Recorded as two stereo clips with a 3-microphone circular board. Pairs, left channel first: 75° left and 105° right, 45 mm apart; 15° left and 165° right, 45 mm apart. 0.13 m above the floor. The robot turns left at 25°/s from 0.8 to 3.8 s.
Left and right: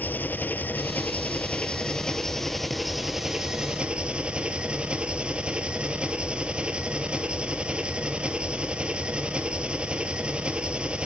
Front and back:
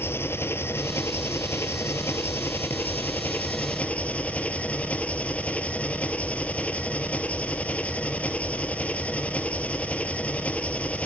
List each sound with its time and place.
0.0 s an engine running: 35° left, 1.1 m; by 11.1 s 40° right, 1.1 m